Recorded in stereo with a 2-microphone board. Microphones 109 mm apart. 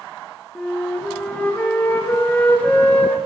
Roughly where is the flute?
Centre.